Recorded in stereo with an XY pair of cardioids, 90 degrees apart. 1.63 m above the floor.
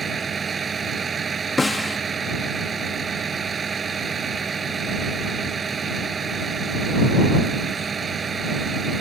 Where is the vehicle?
45° right.